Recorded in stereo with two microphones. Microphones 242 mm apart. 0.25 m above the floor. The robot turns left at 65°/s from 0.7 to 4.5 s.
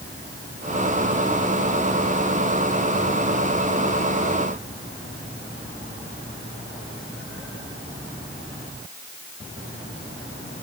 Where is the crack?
I don't hear a crack.